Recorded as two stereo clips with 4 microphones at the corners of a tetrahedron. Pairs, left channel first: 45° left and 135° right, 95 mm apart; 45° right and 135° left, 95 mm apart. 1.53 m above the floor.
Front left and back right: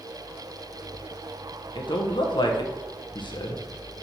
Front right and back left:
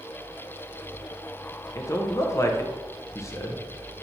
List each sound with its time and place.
1.8 s a man speaking: 15° left, 1.3 m